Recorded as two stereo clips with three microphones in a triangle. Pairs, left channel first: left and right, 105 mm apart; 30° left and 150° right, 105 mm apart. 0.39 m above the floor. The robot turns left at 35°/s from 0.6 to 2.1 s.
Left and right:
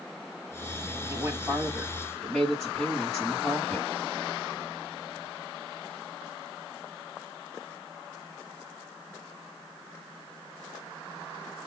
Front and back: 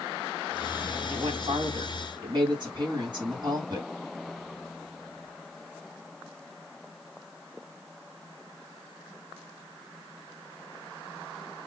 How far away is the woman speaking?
About 2.5 m.